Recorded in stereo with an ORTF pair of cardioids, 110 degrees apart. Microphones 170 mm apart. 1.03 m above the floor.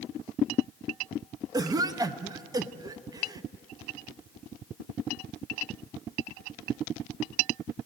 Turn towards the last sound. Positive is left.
turn(degrees=-25)